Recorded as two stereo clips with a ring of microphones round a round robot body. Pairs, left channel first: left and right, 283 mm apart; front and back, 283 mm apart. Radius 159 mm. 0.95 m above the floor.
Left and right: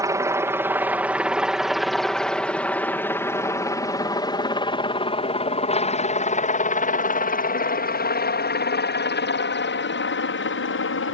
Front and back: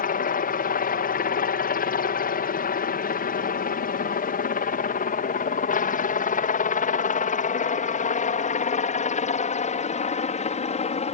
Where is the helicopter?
20° right; by 11.1 s 60° left.